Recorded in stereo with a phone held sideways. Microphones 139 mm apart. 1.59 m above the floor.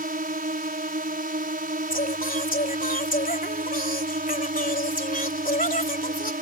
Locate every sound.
0.0 s a drone: 85° right
1.9 s singing: 75° left (ahead or behind)